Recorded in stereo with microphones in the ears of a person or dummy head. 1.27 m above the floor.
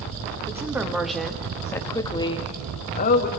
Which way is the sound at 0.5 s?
10° right (ahead or behind).